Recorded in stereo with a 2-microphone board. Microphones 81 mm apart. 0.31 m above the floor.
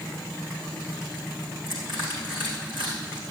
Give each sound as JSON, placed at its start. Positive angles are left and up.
{"t": 1.7, "sound": "crushing", "side_deg": -75, "distance_m": 4.5}